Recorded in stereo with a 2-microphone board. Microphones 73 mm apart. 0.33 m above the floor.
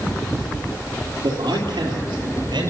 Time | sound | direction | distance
1.2 | a man speaking | 65° right (ahead or behind) | 7 m